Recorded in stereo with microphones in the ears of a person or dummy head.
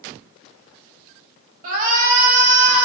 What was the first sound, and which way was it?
A shout, 50° right (ahead or behind).